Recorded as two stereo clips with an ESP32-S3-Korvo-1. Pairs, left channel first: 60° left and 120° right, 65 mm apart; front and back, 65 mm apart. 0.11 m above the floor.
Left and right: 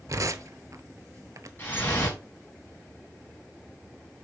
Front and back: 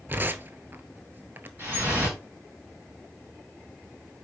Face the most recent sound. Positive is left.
turn(degrees=120)